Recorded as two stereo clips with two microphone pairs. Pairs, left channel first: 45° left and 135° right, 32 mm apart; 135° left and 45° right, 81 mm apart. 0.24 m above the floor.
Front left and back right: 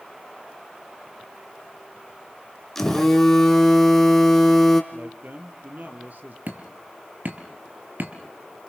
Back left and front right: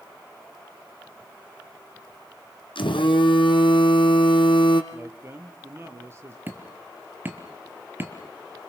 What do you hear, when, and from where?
2.8 s a phone buzzing: 130° left, 2.5 m
4.9 s a man speaking: 100° right, 4 m
6.5 s hammering: 110° right, 4.5 m